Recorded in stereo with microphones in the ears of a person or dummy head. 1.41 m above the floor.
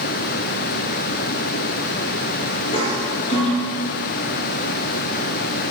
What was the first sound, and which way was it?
A toilet flushing, 35° left (ahead or behind).